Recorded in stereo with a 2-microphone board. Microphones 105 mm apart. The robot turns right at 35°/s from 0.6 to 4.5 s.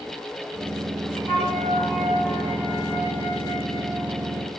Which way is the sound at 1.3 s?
60° left.